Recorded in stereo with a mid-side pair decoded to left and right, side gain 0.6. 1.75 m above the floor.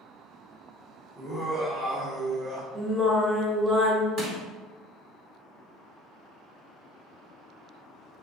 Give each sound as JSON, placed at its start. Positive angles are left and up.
{"t": 1.2, "sound": "laughter", "azimuth_deg": -20, "distance_m": 1.1}
{"t": 2.8, "sound": "singing", "azimuth_deg": -20, "distance_m": 1.3}
{"t": 4.2, "sound": "crushing", "azimuth_deg": -60, "distance_m": 1.6}